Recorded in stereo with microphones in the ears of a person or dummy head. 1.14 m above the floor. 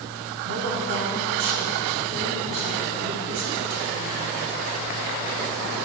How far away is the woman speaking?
About 1.6 m.